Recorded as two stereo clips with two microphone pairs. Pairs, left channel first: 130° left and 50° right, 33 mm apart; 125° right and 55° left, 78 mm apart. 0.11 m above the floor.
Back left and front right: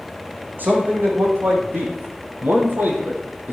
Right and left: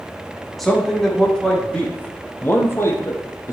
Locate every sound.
0.6 s a man speaking: 35° right, 5 m; by 3.5 s 80° right, 3 m